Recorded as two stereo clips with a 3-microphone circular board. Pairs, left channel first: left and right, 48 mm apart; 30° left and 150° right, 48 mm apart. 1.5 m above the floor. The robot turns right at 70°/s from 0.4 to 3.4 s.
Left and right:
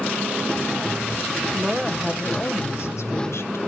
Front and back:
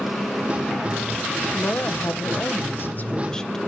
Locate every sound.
1.5 s a woman speaking: 20° right, 1.1 m; by 3.6 s 110° left, 1.1 m